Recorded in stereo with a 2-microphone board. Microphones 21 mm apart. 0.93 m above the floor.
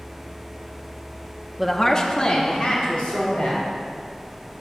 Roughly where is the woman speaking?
Centre.